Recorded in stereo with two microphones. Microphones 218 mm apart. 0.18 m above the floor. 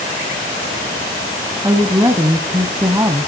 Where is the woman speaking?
15° right (ahead or behind), 1.1 m.